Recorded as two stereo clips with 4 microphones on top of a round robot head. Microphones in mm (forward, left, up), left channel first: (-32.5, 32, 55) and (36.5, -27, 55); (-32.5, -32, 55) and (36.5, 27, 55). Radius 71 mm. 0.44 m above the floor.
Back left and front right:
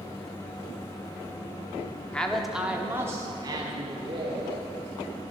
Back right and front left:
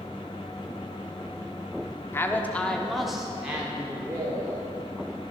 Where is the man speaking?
155° right, 1.1 m; by 4.7 s 20° right, 2 m.